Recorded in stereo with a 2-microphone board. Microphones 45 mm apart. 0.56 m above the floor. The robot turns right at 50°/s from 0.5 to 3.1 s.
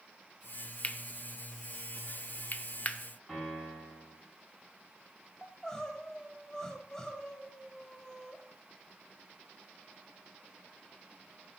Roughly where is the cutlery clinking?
Left.